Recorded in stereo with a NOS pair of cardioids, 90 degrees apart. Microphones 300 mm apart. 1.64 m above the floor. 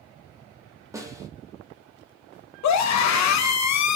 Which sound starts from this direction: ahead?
A snare drum, at 0.9 s.